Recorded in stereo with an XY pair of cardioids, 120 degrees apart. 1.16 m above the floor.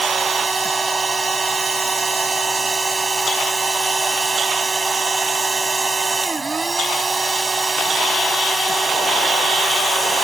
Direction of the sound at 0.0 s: 25° right.